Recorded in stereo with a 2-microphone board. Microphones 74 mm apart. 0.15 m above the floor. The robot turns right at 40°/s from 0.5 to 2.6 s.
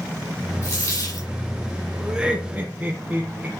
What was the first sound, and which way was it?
A dropped coin, 35° left (ahead or behind).